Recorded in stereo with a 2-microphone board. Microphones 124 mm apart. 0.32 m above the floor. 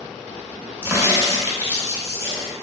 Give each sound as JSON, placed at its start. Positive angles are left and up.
{"t": 0.8, "sound": "a crack", "side_deg": -20, "distance_m": 0.6}